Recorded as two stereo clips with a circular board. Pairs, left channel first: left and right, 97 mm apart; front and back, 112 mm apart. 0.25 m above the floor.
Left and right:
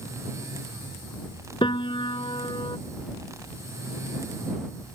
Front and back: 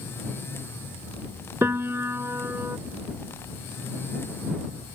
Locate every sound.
1.6 s a piano: 115° left